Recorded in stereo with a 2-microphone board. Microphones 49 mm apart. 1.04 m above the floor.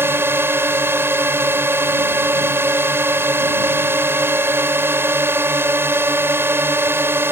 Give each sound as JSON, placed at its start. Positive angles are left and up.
{"t": 0.0, "sound": "a drone", "side_deg": -50}